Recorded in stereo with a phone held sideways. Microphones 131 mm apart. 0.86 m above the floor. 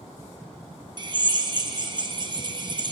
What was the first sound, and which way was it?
A drill, 35° right (ahead or behind).